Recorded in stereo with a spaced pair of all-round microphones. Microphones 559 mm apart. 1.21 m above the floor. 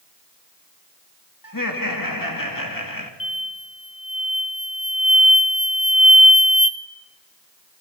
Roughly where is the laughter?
Left.